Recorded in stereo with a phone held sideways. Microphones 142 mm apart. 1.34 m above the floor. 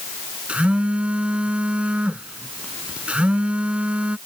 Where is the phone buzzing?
10° right (ahead or behind).